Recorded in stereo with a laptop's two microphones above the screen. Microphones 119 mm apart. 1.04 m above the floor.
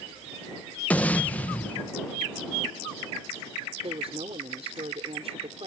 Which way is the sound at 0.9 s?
10° left (ahead or behind).